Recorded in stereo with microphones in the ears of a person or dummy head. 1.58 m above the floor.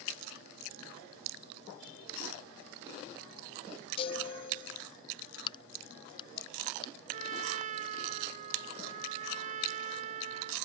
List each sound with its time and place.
4.0 s a chime: 35° left (ahead or behind)
5.5 s a crack: 25° left (ahead or behind)
7.1 s a trumpet: 45° right (ahead or behind)